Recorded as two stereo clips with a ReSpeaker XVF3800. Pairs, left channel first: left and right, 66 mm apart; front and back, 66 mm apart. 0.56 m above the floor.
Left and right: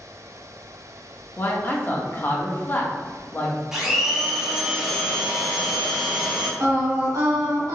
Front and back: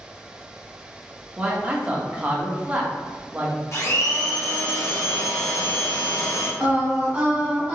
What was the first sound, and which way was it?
A man speaking, 125° left.